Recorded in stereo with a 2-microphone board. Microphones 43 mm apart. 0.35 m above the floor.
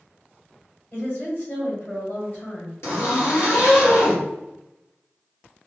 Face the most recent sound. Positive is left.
turn(degrees=80)